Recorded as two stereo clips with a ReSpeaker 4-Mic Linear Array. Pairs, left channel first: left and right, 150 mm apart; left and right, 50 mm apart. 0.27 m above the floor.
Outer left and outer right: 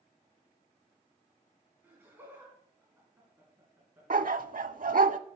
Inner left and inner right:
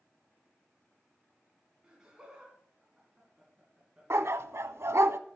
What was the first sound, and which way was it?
Laughter, 15° right (ahead or behind).